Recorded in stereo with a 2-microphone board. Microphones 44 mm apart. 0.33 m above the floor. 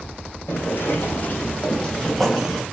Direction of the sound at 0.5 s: 65° left (ahead or behind).